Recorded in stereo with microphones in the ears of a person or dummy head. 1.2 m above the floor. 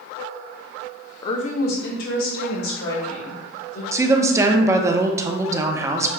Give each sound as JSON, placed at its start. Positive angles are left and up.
{"t": 1.2, "sound": "a woman speaking", "side_deg": 25, "distance_m": 0.6}
{"t": 3.9, "sound": "a woman speaking", "side_deg": -20, "distance_m": 0.6}